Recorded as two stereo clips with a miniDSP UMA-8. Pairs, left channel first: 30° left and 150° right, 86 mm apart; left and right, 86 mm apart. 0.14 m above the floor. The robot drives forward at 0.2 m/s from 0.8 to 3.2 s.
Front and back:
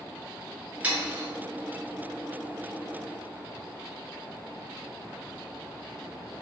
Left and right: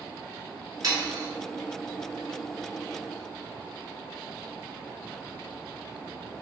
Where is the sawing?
80° right, 1.0 m; by 1.3 s 90° right, 1.0 m.